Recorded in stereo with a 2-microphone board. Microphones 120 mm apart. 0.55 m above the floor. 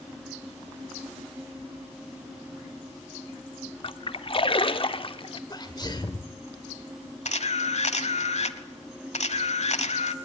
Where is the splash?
45° left (ahead or behind), 0.9 m.